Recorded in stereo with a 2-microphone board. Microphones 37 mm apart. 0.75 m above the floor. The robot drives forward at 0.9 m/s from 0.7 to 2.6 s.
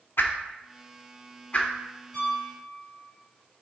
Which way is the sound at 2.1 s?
15° left (ahead or behind).